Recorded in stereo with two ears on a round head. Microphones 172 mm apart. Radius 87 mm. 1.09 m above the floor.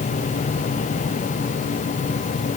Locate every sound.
Only background noise.